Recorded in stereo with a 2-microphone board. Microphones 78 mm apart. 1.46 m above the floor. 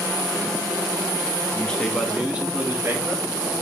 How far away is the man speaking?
About 2.0 m.